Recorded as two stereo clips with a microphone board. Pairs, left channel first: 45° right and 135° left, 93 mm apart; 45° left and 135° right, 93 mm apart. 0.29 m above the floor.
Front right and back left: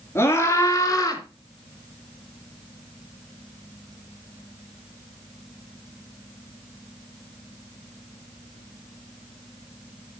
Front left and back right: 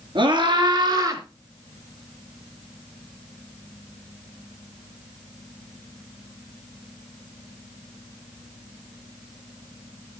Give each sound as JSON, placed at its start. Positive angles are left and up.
{"t": 0.1, "sound": "a scream", "azimuth_deg": -105, "distance_m": 3.5}